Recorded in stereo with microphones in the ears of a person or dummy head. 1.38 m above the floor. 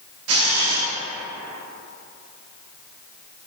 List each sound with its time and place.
0.3 s a camera shutter: 70° right (ahead or behind), 0.7 m